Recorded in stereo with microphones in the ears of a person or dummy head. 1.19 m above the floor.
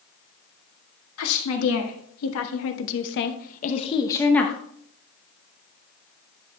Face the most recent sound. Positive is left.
turn(degrees=5)  # may be behind; listen again after turning